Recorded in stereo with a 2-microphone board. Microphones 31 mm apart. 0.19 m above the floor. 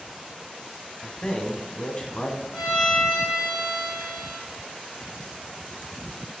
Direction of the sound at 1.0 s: 30° left (ahead or behind).